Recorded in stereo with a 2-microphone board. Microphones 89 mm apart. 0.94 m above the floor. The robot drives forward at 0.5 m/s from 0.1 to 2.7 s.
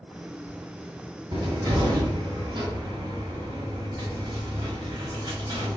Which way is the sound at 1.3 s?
60° right (ahead or behind).